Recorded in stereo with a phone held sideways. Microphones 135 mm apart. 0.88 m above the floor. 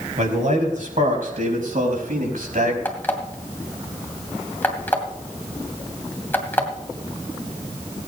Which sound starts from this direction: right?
A man speaking, at 0.2 s.